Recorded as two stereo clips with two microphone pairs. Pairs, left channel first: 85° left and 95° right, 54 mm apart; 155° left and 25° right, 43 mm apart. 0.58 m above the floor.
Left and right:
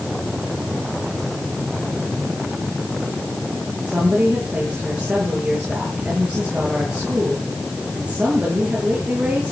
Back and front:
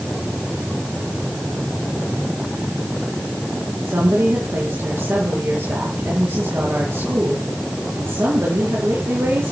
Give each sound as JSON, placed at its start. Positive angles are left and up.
{"t": 3.8, "sound": "a woman speaking", "azimuth_deg": -25, "distance_m": 9.5}